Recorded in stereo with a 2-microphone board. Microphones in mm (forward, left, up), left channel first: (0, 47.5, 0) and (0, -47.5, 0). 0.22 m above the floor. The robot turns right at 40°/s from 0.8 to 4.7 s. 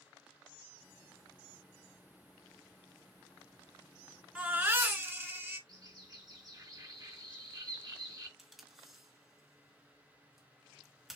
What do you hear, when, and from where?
4.3 s a baby crying: 10° right (ahead or behind), 1.5 m; by 5.6 s 25° right (ahead or behind), 1.5 m
5.7 s a bird: 45° right (ahead or behind), 2.5 m
8.4 s tape being pulled: 5° right (ahead or behind), 1.7 m